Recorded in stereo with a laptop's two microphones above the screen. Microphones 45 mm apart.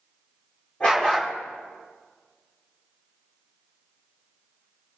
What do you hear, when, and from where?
0.8 s a dog barking: 25° left (ahead or behind), 9 m